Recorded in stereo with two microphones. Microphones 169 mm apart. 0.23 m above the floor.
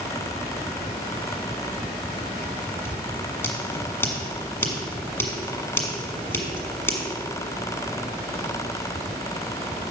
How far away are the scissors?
About 1.7 m.